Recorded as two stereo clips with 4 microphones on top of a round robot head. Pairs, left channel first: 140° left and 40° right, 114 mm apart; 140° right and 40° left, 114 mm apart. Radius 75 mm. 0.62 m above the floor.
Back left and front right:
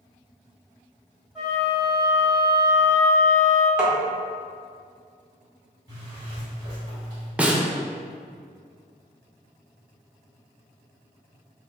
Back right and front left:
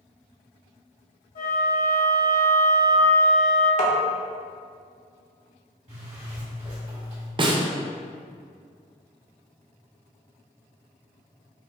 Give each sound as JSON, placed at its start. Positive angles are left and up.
{"t": 1.4, "sound": "a flute", "azimuth_deg": -125, "distance_m": 1.6}
{"t": 3.8, "sound": "tapping", "azimuth_deg": -125, "distance_m": 1.0}
{"t": 5.9, "sound": "a zipper", "azimuth_deg": 15, "distance_m": 1.9}
{"t": 7.4, "sound": "a snare drum", "azimuth_deg": 30, "distance_m": 0.6}